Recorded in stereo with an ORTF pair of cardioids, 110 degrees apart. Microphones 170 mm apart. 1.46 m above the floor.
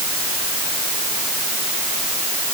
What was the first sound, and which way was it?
Only background noise.